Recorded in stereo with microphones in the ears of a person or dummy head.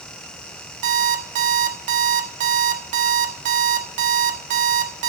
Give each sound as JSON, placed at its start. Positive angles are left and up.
{"t": 0.8, "sound": "an alarm clock", "side_deg": -35, "distance_m": 1.3}